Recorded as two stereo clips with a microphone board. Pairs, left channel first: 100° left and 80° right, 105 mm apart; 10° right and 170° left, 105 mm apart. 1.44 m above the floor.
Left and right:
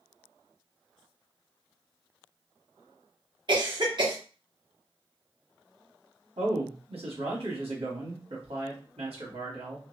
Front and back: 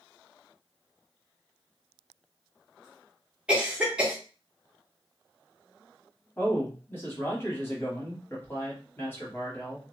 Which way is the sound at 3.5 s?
110° right.